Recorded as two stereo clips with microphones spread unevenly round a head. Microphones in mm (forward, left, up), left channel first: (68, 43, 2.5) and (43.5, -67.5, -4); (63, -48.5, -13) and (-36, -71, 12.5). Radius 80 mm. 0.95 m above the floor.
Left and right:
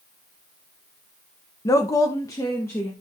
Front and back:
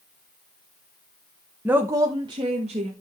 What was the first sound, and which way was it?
A woman speaking, 105° left.